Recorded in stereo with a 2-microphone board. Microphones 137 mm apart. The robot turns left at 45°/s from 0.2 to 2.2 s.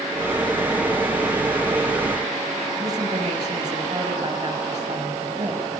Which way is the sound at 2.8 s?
30° right (ahead or behind).